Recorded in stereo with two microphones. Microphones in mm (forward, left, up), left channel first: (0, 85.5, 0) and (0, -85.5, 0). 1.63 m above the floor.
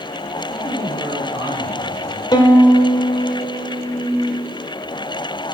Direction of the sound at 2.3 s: 25° left (ahead or behind).